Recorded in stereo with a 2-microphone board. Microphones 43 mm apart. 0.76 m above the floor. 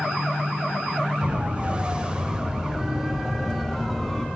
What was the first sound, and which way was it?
A siren, 30° right (ahead or behind).